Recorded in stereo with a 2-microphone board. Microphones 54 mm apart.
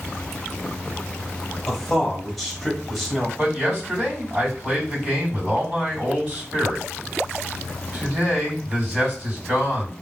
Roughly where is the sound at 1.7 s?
Centre.